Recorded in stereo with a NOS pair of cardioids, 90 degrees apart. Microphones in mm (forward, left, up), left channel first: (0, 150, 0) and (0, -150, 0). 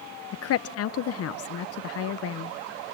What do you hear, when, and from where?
0.3 s a woman speaking: 55° left, 0.7 m